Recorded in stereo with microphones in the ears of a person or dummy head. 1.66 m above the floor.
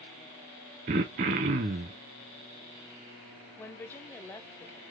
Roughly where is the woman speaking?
Centre.